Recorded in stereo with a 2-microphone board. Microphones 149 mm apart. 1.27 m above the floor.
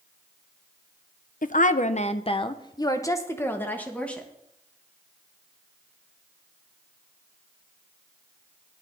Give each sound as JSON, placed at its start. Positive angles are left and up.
{"t": 1.4, "sound": "a woman speaking", "side_deg": 65, "distance_m": 0.7}